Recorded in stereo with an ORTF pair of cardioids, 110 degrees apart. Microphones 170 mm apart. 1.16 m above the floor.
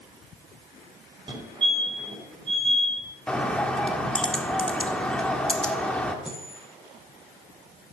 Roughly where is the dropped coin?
Ahead.